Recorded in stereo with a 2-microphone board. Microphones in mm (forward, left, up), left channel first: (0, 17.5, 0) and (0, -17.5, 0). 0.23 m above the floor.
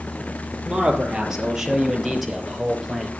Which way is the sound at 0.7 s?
20° right (ahead or behind).